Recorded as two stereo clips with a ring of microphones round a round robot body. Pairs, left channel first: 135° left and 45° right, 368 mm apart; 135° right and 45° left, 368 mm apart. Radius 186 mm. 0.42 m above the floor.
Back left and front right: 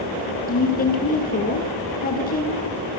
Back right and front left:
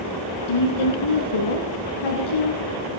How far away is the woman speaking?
About 5.5 m.